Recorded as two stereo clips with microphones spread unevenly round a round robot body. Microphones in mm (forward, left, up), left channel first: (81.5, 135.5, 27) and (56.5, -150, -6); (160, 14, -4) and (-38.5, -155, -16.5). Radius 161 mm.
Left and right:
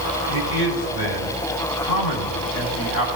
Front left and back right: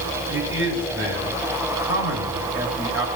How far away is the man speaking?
About 2.5 m.